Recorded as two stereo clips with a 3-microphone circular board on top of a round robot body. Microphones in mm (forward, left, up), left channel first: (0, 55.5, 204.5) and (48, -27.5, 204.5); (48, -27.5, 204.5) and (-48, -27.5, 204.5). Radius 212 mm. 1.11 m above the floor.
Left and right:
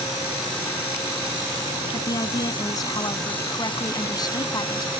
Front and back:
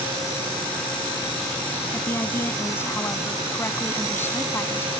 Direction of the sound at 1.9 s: 70° left.